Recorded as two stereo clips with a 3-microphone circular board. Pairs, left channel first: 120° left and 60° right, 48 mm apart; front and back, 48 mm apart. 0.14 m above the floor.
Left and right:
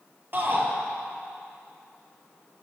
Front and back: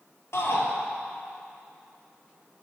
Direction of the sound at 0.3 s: 15° right.